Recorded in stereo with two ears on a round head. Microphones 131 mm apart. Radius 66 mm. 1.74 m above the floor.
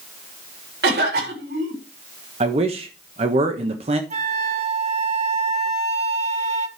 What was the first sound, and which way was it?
A cough, 80° right.